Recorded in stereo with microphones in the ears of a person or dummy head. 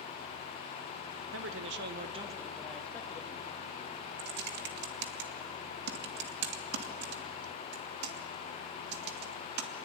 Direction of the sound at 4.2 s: 60° right (ahead or behind).